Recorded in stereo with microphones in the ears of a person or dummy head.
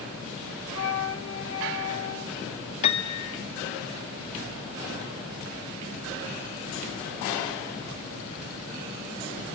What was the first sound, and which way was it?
A flute, 75° left (ahead or behind).